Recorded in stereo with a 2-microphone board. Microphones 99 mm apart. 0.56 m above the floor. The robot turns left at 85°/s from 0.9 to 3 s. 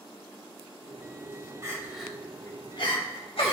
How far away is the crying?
About 2 m.